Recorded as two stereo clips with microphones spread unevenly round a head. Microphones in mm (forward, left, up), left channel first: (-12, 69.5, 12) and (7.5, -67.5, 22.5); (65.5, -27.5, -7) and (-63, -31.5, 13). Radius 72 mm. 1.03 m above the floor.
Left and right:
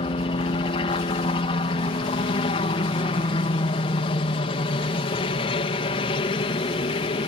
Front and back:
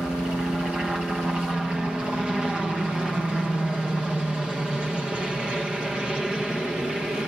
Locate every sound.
0.0 s a helicopter: 95° left